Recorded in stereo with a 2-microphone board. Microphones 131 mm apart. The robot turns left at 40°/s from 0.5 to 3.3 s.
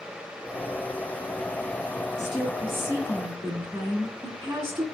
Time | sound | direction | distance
2.2 | a woman speaking | 10° left | 2.5 m